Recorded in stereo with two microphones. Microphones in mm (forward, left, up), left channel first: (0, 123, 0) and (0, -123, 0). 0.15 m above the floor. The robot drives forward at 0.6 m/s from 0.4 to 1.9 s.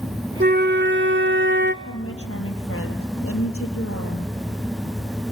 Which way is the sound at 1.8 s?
70° left (ahead or behind).